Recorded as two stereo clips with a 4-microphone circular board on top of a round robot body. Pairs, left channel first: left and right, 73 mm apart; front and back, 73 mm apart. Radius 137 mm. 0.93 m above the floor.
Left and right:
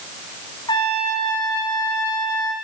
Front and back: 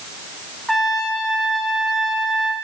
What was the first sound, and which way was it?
A trumpet, 90° left.